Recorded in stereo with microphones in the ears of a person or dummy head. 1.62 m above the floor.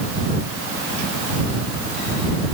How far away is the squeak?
No squeak in this recording.